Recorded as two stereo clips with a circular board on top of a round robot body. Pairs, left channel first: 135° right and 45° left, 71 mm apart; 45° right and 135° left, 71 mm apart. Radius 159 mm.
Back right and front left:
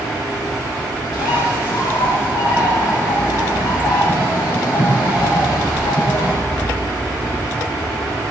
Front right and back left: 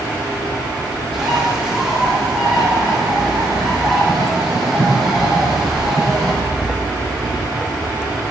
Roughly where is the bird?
Behind right.